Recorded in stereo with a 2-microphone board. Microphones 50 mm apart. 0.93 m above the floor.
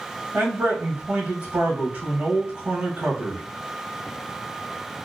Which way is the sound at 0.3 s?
30° right (ahead or behind).